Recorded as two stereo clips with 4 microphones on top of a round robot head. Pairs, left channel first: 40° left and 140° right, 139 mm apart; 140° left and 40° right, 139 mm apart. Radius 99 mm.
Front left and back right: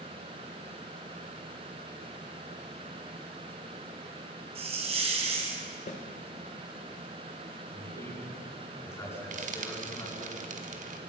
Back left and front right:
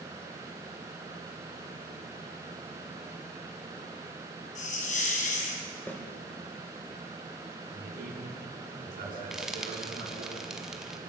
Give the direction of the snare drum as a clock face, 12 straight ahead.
10 o'clock.